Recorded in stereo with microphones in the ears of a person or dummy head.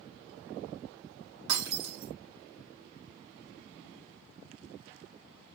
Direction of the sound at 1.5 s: 75° right (ahead or behind).